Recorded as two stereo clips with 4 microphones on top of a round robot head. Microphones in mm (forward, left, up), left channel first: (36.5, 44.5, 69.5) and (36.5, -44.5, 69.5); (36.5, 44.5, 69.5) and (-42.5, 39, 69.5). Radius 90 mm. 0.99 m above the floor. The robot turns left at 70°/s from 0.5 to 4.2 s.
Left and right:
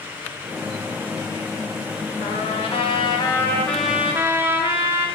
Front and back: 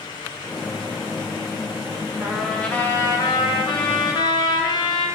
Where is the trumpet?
115° left, 2 m; by 5.1 s 25° right, 2 m.